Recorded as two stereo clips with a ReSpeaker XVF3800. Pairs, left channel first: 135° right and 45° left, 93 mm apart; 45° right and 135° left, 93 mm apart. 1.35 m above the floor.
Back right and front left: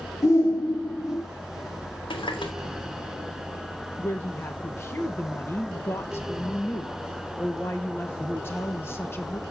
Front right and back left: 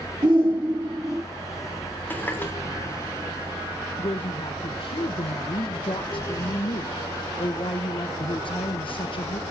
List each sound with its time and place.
0.2 s a shout: 170° left, 3 m; by 1.2 s straight behind, 2 m
2.1 s a running tap: 115° right, 3 m
4.0 s a woman speaking: 70° right, 1.0 m